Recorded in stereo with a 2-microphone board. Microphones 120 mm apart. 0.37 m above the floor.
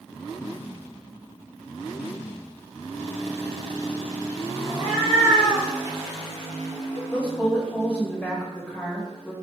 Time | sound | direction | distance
4.7 | a cat meowing | 25° right (ahead or behind) | 1.6 m
7.1 | a woman speaking | 10° left (ahead or behind) | 1.3 m